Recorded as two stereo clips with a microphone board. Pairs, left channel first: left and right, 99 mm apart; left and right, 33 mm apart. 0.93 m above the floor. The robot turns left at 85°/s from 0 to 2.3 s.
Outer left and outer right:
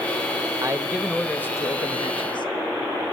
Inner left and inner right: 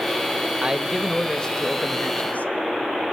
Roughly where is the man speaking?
Behind right.